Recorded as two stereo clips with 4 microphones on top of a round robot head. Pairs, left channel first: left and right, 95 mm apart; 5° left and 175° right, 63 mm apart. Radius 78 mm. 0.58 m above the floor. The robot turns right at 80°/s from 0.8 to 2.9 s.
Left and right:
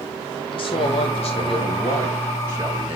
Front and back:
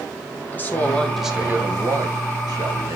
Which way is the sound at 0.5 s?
65° left.